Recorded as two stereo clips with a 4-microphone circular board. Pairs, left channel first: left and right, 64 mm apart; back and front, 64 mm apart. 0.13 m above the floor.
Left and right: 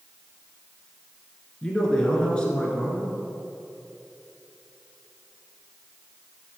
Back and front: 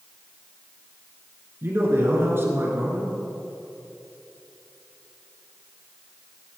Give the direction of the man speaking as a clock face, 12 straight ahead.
11 o'clock.